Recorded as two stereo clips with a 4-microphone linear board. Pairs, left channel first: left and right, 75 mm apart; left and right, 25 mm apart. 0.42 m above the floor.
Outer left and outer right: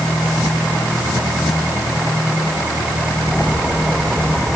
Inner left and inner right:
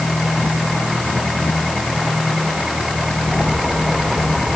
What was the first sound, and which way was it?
Only background noise.